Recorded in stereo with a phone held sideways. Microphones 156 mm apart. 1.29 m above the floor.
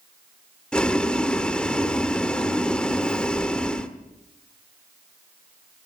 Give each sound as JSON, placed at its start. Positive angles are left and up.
{"t": 0.7, "sound": "boiling", "side_deg": 5, "distance_m": 1.2}